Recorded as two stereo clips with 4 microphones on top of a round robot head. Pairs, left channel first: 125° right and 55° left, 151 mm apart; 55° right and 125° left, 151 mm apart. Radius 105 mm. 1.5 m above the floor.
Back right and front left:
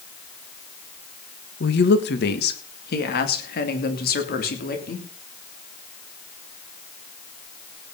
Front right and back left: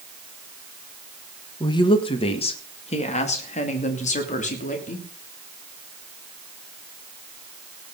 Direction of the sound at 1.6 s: 120° right.